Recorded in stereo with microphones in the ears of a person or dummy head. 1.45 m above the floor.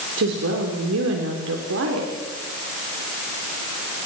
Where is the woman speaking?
65° right (ahead or behind), 3.5 m.